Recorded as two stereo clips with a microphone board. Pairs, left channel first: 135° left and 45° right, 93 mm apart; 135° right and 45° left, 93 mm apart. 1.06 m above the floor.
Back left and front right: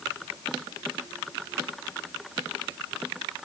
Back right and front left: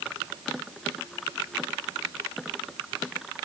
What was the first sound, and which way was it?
Only background noise.